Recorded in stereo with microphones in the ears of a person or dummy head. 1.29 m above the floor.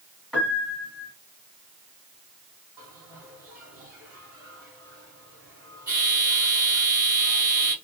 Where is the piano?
Centre (ahead or behind), 1.7 m.